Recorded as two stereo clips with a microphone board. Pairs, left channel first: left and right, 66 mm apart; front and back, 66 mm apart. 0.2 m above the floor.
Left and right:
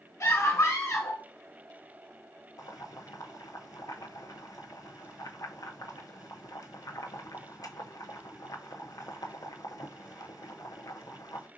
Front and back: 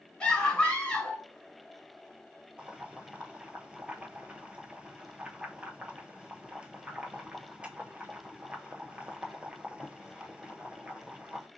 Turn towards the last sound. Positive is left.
turn(degrees=105)